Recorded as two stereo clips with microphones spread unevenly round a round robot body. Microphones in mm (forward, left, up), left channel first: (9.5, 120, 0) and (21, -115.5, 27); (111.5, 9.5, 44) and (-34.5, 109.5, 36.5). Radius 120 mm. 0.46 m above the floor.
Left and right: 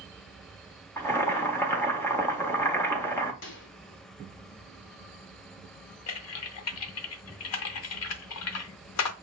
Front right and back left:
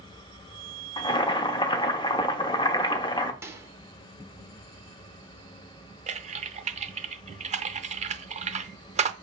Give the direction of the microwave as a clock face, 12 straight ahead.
10 o'clock.